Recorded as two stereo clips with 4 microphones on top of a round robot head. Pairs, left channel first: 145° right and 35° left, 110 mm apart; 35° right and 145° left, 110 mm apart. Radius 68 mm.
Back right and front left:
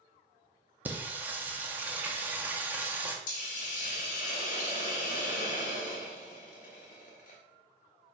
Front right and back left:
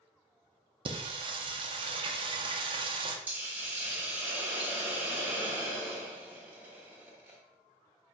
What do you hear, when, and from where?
0.8 s singing: 110° left, 0.7 m
3.3 s a hiss: 140° right, 1.0 m